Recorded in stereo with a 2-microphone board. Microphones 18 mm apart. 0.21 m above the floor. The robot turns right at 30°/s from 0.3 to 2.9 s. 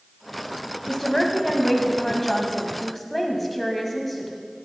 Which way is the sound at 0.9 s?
20° left (ahead or behind).